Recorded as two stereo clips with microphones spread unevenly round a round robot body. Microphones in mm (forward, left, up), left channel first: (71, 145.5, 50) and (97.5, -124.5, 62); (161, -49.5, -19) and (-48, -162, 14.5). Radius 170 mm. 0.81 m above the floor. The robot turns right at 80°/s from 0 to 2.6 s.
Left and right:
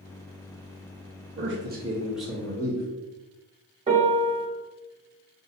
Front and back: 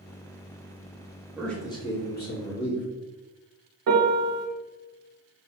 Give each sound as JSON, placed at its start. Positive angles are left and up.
{"t": 1.4, "sound": "a man speaking", "azimuth_deg": -60, "distance_m": 1.2}
{"t": 3.9, "sound": "a piano", "azimuth_deg": -155, "distance_m": 0.9}